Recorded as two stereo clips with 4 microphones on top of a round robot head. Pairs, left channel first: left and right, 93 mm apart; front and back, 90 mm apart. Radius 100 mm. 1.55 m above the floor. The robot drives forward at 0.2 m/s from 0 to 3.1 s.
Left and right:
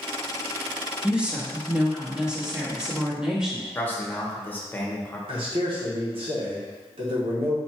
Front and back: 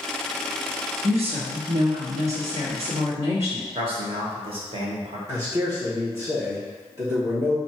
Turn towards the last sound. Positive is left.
turn(degrees=-115)